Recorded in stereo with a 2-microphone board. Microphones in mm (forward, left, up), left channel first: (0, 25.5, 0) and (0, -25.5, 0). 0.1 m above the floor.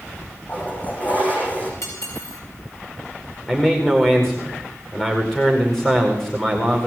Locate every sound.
0.5 s a toilet flushing: 30° left (ahead or behind), 6 m
1.8 s cutlery clinking: 75° left (ahead or behind), 5 m
3.5 s a man speaking: 10° left (ahead or behind), 8.5 m